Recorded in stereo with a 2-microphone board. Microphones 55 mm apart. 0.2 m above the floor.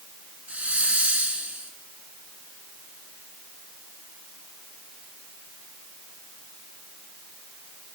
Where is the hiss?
25° right (ahead or behind), 2.5 m.